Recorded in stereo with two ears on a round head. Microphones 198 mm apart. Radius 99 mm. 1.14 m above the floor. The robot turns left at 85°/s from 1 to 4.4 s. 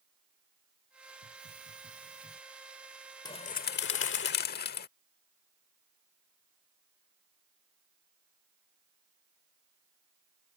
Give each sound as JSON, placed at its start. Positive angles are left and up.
{"t": 1.2, "sound": "a hiss", "azimuth_deg": -85}
{"t": 3.2, "sound": "a bird", "azimuth_deg": 155}